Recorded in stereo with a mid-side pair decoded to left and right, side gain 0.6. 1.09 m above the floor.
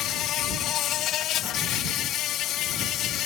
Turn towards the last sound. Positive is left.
turn(degrees=60)